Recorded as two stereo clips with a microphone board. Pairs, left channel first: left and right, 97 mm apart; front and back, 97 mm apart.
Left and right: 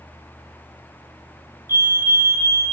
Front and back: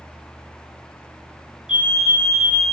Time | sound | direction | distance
1.7 | a fire alarm | 110° right | 2 m